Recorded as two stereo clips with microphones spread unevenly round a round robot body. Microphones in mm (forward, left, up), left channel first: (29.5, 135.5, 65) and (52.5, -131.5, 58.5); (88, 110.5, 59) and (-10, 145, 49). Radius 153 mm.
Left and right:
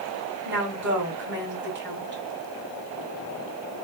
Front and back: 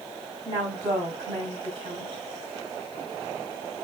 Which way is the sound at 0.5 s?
135° right.